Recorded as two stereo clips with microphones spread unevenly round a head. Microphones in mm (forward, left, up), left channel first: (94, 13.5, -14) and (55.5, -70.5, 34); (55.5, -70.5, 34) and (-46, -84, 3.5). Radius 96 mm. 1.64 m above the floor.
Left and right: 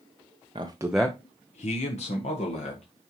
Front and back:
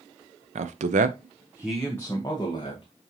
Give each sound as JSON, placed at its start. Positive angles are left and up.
{"t": 0.6, "sound": "a man speaking", "azimuth_deg": -165, "distance_m": 0.8}